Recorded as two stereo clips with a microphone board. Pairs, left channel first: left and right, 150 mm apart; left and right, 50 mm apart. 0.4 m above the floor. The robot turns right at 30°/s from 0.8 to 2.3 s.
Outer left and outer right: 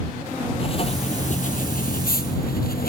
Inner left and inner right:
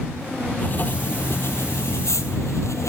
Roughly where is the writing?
Ahead left.